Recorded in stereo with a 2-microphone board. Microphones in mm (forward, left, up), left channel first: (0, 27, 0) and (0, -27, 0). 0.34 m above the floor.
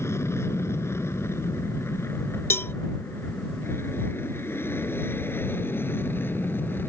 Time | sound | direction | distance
0.0 | an aircraft | 55° left (ahead or behind) | ?
2.5 | a cowbell | 50° left (ahead or behind) | ?